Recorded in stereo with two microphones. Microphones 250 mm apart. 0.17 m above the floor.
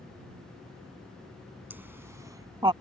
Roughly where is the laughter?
Centre.